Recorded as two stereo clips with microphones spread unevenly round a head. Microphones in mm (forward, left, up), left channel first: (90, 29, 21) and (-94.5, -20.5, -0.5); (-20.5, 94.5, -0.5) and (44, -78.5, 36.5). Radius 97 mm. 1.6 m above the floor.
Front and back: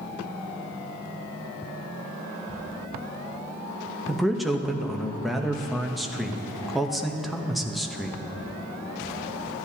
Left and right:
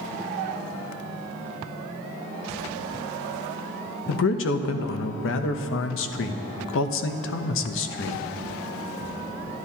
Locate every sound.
4.1 s a man speaking: 105° left, 0.7 m